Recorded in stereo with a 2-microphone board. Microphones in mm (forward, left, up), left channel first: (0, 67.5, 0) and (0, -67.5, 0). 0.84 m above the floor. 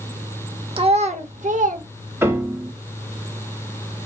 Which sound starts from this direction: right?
A child speaking, at 0.8 s.